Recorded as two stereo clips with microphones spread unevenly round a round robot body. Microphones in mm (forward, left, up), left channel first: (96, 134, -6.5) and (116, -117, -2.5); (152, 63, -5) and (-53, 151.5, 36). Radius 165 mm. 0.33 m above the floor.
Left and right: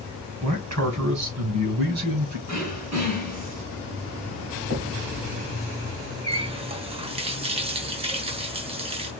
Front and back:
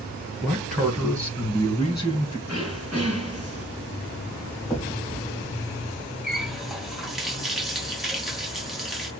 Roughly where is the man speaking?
Right.